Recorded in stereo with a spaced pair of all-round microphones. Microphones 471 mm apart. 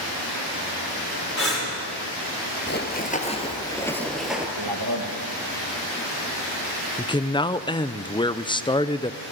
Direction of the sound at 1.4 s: 30° left (ahead or behind).